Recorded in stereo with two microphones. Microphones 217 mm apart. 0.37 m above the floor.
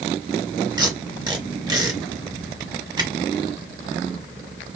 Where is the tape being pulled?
20° right (ahead or behind), 0.9 m.